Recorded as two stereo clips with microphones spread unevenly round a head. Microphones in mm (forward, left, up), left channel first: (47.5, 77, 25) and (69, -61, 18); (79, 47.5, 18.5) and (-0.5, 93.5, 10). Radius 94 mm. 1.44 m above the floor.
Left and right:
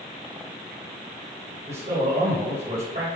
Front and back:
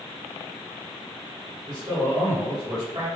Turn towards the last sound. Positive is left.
turn(degrees=-140)